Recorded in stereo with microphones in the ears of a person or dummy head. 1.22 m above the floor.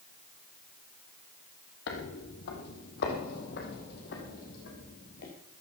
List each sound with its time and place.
1.9 s footsteps: 65° left (ahead or behind), 3 m; by 5.3 s 60° left (ahead or behind), 4.5 m